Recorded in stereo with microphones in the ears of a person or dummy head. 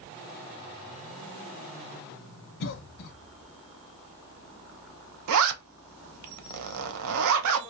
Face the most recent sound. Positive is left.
turn(degrees=-85)